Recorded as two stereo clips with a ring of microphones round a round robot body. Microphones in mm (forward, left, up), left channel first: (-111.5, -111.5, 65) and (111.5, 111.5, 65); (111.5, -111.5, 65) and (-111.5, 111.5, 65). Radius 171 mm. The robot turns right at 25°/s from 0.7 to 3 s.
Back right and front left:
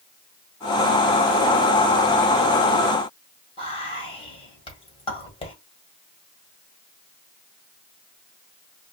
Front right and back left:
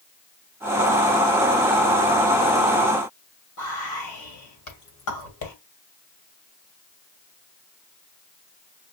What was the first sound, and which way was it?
Whispering, 65° right.